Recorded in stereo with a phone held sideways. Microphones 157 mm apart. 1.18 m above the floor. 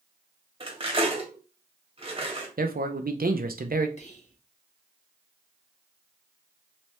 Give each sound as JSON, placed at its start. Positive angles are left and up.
{"t": 0.6, "sound": "cutlery clinking", "side_deg": -35, "distance_m": 1.2}
{"t": 2.6, "sound": "a man speaking", "side_deg": -70, "distance_m": 0.6}
{"t": 4.0, "sound": "whispering", "side_deg": 50, "distance_m": 1.4}